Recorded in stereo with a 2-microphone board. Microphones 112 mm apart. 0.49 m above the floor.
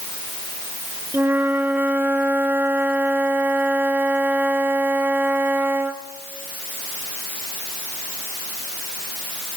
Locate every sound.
1.1 s a flute: 15° right (ahead or behind), 0.9 m